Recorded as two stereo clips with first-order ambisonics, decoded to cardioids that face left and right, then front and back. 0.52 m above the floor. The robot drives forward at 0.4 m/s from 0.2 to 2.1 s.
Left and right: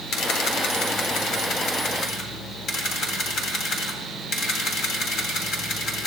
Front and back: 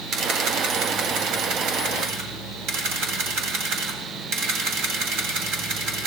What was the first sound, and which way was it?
A camera shutter, 135° left.